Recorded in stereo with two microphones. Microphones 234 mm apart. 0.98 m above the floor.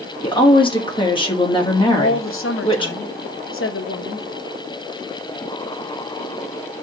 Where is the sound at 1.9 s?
65° left (ahead or behind), 0.7 m.